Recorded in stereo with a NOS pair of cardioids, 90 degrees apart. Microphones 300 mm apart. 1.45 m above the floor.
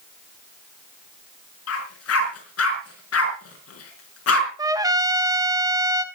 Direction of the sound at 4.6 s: 10° right.